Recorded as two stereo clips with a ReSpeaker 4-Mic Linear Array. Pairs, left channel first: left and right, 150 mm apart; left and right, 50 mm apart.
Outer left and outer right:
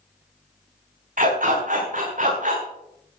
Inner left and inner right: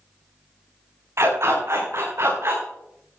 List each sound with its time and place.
1.2 s a dog barking: 65° right (ahead or behind), 7 m; by 2.6 s 60° right (ahead or behind), 5.5 m